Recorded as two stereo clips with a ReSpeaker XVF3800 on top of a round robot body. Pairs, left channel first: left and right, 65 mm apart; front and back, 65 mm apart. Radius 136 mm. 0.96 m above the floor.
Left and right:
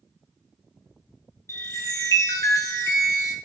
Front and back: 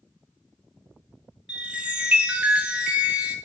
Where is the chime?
115° left, 0.7 m.